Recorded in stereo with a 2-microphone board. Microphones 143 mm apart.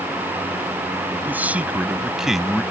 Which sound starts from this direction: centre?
A man speaking, at 1.2 s.